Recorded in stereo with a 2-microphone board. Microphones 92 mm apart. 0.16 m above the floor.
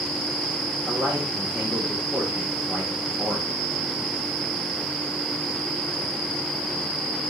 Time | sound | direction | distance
0.9 | a man speaking | 10° right (ahead or behind) | 7.5 m